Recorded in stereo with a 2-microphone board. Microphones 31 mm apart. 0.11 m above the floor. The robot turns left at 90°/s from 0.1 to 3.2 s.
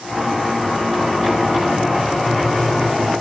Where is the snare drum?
No snare drum in this recording.